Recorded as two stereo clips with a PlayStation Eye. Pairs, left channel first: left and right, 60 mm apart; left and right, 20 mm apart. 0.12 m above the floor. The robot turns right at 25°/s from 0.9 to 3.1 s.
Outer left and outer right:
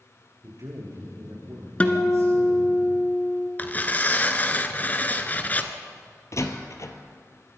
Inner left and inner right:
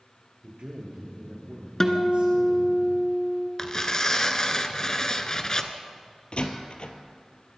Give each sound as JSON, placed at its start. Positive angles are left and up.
{"t": 0.4, "sound": "a man speaking", "azimuth_deg": -110, "distance_m": 7.0}
{"t": 1.8, "sound": "a guitar", "side_deg": 25, "distance_m": 1.8}
{"t": 3.6, "sound": "tearing paper", "side_deg": 30, "distance_m": 1.3}
{"t": 6.3, "sound": "a door slam", "side_deg": 55, "distance_m": 1.8}